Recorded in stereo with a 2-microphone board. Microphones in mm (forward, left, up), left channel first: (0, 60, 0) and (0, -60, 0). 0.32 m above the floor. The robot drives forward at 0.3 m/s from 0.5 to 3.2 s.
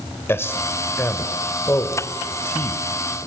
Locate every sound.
0.3 s a man speaking: 20° left (ahead or behind), 1.5 m